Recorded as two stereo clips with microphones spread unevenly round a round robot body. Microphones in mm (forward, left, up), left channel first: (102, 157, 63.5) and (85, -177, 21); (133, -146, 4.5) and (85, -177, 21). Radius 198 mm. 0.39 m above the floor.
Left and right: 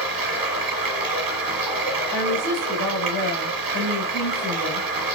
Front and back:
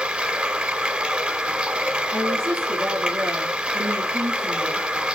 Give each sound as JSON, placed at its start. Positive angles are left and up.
{"t": 0.0, "sound": "running water", "azimuth_deg": -70, "distance_m": 1.6}
{"t": 2.1, "sound": "a woman speaking", "azimuth_deg": 140, "distance_m": 3.5}